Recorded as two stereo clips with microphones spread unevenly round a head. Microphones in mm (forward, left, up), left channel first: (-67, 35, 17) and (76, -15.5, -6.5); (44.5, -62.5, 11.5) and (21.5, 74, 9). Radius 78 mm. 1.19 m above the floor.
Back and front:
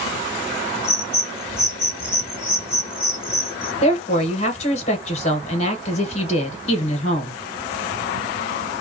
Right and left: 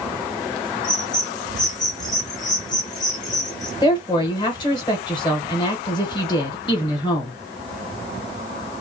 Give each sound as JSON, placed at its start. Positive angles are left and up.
{"t": 0.8, "sound": "a bird", "azimuth_deg": -140, "distance_m": 1.0}
{"t": 3.8, "sound": "a woman speaking", "azimuth_deg": -145, "distance_m": 1.1}